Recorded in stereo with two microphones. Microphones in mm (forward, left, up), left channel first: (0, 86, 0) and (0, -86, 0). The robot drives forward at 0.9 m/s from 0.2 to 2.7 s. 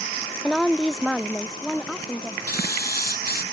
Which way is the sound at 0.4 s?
Centre (ahead or behind).